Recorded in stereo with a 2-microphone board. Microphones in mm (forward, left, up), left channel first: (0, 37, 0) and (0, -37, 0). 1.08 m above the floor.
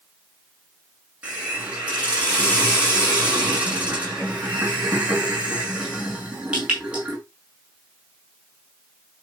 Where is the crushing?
No crushing in this recording.